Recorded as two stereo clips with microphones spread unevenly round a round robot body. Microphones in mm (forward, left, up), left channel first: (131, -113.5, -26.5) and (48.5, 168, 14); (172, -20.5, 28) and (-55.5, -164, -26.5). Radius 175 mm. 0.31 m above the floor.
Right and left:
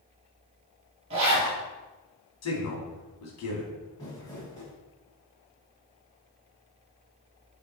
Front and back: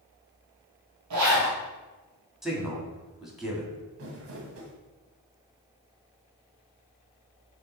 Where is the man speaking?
65° right, 2 m.